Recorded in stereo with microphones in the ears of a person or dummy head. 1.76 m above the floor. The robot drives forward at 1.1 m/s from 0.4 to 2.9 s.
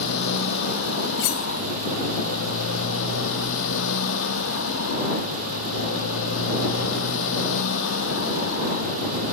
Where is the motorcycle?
70° left (ahead or behind); by 9.3 s 75° left (ahead or behind).